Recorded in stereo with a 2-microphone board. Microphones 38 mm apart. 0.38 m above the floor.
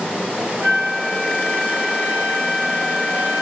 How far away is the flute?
About 2.5 m.